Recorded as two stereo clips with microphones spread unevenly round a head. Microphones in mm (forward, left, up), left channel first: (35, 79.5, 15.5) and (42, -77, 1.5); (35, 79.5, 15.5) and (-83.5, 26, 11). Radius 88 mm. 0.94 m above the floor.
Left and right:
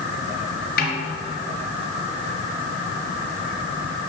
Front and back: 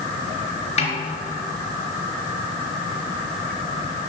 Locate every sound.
0.8 s a snare drum: 65° left, 4 m